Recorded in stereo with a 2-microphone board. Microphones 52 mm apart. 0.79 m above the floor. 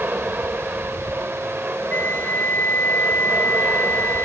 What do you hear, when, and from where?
0.0 s an aircraft: 30° right (ahead or behind)
1.9 s a flute: 45° left (ahead or behind)